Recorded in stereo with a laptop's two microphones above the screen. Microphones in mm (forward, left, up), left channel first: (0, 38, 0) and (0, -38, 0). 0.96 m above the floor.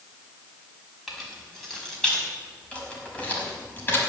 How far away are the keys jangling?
About 6 m.